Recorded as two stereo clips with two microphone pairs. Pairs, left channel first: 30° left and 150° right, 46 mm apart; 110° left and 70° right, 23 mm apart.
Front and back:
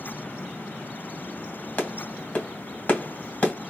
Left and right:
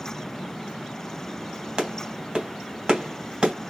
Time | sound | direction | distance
1.8 | a clap | 20° right | 1.8 m